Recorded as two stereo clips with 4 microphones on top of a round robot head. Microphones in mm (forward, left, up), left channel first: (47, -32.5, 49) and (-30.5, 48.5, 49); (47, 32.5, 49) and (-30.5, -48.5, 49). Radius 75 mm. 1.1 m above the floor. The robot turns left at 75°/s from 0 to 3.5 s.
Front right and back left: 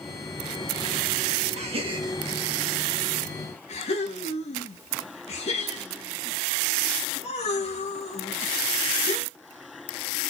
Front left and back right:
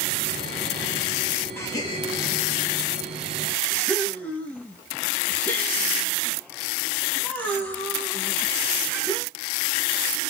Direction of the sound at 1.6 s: 115° left.